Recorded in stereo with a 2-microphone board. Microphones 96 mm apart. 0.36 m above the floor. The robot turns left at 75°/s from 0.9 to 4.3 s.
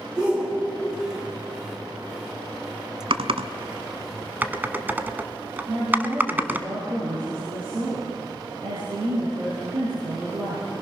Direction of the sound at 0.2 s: 10° right (ahead or behind).